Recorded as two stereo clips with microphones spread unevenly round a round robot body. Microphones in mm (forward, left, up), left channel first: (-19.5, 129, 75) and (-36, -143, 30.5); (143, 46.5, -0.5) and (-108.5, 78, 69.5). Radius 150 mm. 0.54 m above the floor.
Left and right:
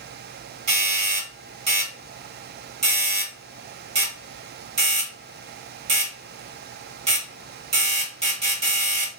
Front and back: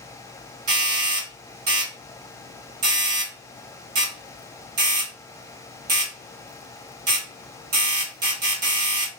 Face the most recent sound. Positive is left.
turn(degrees=-150)